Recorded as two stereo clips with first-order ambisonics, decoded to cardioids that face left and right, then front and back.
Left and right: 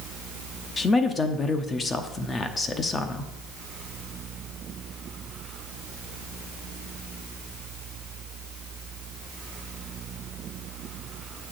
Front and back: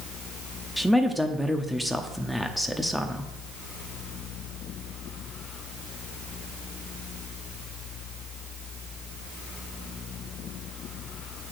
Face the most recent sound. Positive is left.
turn(degrees=85)